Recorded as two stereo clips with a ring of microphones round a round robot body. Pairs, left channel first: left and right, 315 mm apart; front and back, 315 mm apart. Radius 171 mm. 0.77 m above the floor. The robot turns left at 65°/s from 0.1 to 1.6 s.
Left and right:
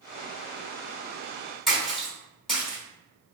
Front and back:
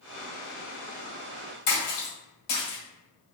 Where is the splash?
Straight ahead, 1.6 m.